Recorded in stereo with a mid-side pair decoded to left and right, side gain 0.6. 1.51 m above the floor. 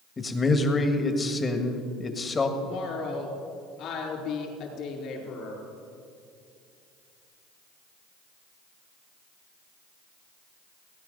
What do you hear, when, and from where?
0.2 s a man speaking: 25° left, 1.6 m
2.6 s a woman speaking: 60° left, 4 m